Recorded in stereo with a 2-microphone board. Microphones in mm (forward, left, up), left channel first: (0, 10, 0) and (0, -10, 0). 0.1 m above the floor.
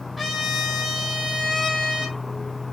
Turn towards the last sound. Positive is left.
turn(degrees=0)  # may be behind; listen again after turning